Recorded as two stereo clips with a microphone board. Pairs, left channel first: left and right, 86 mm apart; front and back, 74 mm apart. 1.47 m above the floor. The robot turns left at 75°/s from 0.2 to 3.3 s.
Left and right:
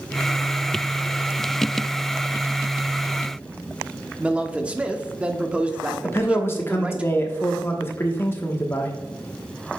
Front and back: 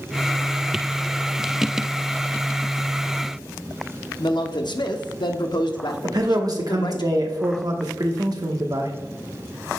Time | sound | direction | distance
4.2 | a man speaking | 15° right | 0.8 m
6.0 | a man speaking | 150° left | 1.1 m